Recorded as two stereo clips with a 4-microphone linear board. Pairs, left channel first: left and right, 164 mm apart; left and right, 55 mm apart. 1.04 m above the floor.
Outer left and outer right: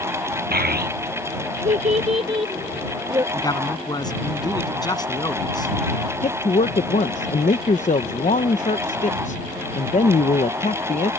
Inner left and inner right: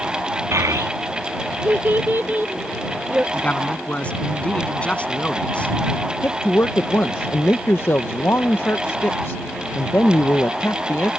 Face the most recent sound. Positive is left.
turn(degrees=50)  # may be behind; listen again after turning